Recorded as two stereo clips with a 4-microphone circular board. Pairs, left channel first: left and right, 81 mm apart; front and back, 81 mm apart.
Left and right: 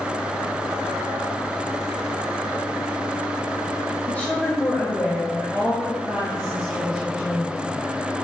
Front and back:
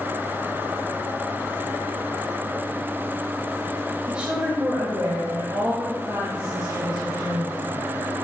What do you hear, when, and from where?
4.1 s a woman speaking: 115° left, 1.1 m; by 7.8 s 175° left, 4 m